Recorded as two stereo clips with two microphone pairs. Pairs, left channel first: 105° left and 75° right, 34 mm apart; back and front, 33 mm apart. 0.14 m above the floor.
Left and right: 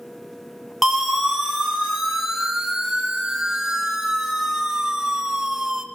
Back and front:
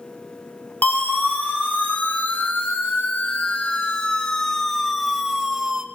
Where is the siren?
160° right, 4 m; by 5.8 s 25° right, 1.9 m.